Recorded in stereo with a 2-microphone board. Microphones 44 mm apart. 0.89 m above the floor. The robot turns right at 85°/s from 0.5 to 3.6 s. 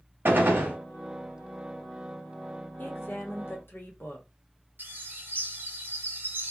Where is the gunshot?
50° right (ahead or behind), 1.0 m; by 0.8 s 40° right (ahead or behind), 1.0 m.